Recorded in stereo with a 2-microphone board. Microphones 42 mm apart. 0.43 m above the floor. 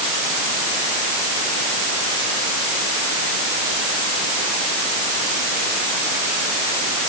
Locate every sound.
Only background noise.